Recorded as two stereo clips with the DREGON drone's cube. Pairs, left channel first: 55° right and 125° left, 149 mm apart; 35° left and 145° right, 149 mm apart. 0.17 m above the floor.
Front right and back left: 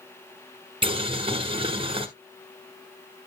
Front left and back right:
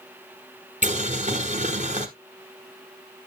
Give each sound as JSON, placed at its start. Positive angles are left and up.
{"t": 0.8, "sound": "boiling", "azimuth_deg": 175, "distance_m": 1.1}